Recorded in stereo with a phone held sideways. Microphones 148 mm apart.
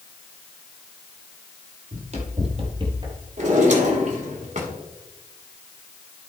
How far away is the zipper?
I don't hear a zipper.